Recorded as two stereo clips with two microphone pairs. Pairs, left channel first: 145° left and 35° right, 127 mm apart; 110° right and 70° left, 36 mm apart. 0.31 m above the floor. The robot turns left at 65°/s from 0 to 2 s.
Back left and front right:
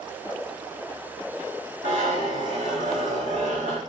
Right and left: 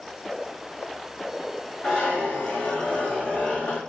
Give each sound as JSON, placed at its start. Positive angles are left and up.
{"t": 1.8, "sound": "a zipper", "azimuth_deg": -35, "distance_m": 4.0}